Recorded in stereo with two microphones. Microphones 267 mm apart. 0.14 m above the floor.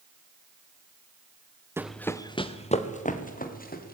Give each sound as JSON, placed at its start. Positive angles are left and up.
{"t": 1.8, "sound": "running footsteps", "side_deg": -10, "distance_m": 0.9}